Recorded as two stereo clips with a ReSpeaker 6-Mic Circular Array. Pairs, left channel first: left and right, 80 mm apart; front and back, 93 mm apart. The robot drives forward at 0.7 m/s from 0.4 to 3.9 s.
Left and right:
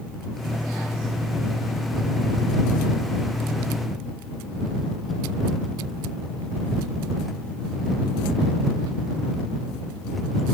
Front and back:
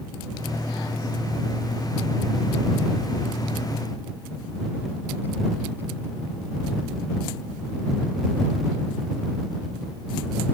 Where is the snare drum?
No snare drum in this recording.